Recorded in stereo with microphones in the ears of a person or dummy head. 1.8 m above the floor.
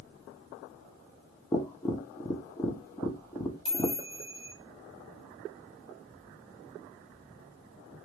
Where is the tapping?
15° left (ahead or behind), 0.7 m.